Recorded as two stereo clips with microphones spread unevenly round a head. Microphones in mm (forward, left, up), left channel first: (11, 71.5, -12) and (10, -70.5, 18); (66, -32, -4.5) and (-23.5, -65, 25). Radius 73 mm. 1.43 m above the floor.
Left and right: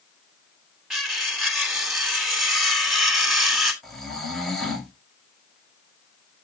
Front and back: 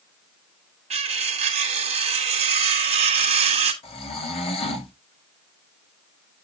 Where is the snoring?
Straight ahead, 3 m.